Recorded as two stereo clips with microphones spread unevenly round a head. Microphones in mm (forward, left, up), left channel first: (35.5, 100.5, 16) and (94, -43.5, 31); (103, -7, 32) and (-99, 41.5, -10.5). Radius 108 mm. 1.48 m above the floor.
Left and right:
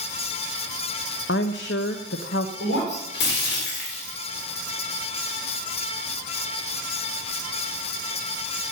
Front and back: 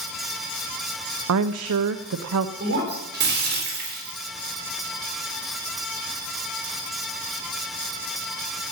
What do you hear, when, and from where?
1.3 s a woman speaking: 150° left, 0.7 m
2.6 s breaking glass: 125° left, 3.5 m